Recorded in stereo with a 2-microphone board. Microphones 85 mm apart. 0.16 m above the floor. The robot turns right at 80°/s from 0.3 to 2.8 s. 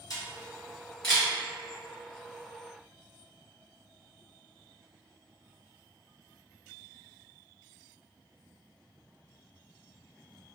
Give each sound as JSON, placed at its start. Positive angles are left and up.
{"t": 0.1, "sound": "a camera shutter", "side_deg": 55, "distance_m": 1.4}